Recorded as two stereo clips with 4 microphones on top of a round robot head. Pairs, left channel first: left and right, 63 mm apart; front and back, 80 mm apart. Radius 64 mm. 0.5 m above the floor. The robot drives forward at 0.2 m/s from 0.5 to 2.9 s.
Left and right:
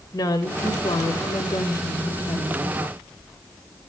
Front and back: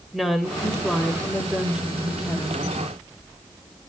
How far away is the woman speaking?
About 2.5 m.